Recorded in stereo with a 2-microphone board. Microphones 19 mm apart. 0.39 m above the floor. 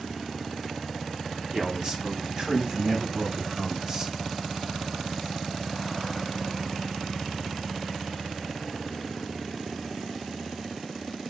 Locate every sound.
1.5 s a man speaking: 45° right (ahead or behind), 3.5 m; by 4.1 s 30° right (ahead or behind), 2.0 m